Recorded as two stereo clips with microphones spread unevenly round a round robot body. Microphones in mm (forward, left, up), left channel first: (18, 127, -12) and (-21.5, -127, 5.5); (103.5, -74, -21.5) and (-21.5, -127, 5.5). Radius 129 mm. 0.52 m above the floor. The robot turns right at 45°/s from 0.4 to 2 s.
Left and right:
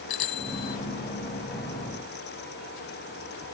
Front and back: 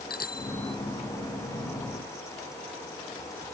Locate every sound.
0.1 s a bicycle bell: 80° left; by 0.8 s 95° left